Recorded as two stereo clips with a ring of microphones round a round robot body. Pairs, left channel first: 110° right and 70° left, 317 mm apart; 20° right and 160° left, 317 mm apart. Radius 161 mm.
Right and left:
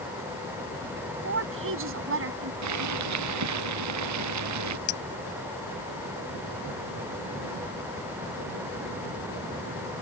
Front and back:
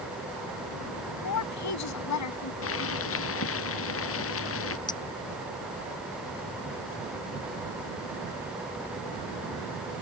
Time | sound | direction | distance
1.2 | a woman speaking | 15° left | ?
2.6 | boiling | 30° left | ?
4.9 | a clink | 100° right | ?